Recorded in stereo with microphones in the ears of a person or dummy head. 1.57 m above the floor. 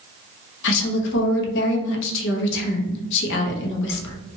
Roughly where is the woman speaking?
Left.